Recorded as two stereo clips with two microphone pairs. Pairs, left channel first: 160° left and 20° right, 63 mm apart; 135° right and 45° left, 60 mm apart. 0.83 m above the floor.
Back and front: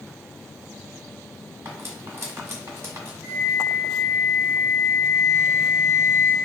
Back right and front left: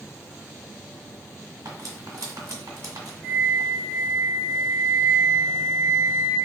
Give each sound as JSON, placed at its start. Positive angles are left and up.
{"t": 1.6, "sound": "cutlery clinking", "azimuth_deg": 30, "distance_m": 1.5}
{"t": 3.2, "sound": "a flute", "azimuth_deg": 30, "distance_m": 1.3}